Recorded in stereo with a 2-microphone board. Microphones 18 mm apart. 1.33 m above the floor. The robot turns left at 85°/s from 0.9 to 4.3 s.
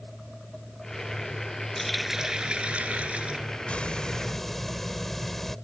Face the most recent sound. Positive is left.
turn(degrees=10)